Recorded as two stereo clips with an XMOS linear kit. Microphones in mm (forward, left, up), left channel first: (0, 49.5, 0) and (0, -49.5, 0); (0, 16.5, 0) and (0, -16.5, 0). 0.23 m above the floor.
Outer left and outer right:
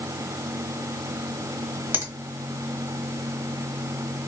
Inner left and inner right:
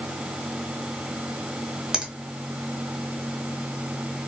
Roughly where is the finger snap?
Centre.